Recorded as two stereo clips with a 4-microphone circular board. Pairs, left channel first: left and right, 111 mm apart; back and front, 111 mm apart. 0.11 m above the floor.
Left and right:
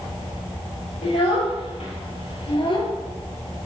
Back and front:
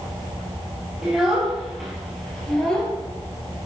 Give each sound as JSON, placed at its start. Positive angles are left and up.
{"t": 1.0, "sound": "a child speaking", "azimuth_deg": 80, "distance_m": 2.5}